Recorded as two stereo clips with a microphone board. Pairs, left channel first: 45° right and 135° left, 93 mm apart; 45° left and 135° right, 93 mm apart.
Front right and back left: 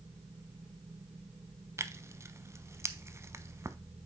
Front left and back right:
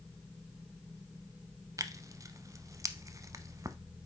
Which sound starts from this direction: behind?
Tearing paper, at 1.8 s.